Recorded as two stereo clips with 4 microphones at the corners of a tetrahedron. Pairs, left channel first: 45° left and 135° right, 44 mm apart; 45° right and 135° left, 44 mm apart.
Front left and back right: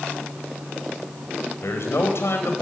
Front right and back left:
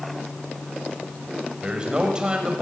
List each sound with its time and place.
1.6 s a man speaking: 65° left, 4.5 m